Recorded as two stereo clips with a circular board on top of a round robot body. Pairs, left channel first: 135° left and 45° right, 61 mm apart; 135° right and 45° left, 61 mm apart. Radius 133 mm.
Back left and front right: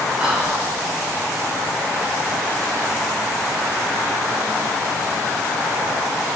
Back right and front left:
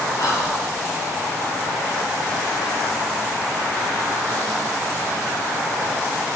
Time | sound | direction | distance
0.2 | whispering | 110° right | 1.7 m